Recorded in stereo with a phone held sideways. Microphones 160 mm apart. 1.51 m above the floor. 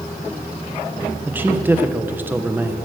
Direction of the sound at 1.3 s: 10° right (ahead or behind).